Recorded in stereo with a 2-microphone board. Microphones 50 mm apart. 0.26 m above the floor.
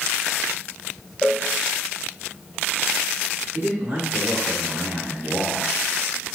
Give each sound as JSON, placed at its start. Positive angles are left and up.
{"t": 1.2, "sound": "a cowbell", "side_deg": -15, "distance_m": 1.4}
{"t": 3.5, "sound": "a man speaking", "side_deg": -40, "distance_m": 3.5}